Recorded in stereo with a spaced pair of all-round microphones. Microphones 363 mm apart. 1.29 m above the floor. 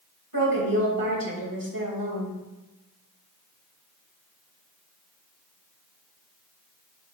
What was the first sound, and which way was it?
A woman speaking, 70° right (ahead or behind).